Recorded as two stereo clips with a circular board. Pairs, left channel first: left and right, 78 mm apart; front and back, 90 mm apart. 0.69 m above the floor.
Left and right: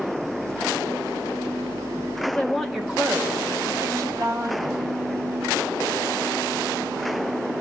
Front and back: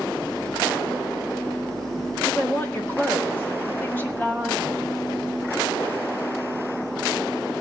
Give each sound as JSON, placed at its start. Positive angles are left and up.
{"t": 2.2, "sound": "a woman speaking", "azimuth_deg": 40, "distance_m": 1.1}